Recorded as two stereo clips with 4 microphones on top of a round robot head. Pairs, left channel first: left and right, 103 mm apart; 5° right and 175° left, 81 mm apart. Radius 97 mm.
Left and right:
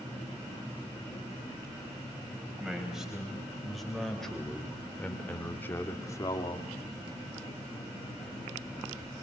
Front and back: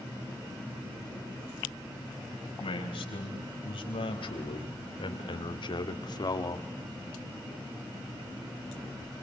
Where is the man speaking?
5° right, 5 m; by 6.7 s 40° left, 1.7 m.